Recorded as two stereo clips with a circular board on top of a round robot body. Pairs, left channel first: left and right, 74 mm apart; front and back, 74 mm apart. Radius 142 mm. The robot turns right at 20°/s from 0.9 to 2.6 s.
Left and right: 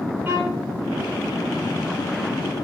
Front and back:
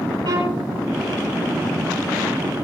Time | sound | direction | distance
0.2 | a violin | 155° right | 7.5 m